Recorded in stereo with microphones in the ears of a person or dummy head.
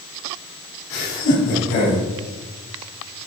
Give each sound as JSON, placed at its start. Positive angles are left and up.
{"t": 0.9, "sound": "laughter", "side_deg": 40, "distance_m": 3.0}